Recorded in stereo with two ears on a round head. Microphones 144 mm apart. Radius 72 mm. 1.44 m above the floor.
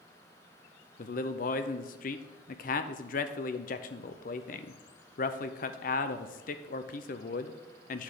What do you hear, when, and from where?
1.0 s a man speaking: 55° left (ahead or behind), 0.6 m